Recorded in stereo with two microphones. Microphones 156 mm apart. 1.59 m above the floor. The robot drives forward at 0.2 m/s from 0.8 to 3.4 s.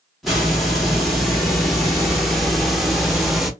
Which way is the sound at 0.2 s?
Centre (ahead or behind).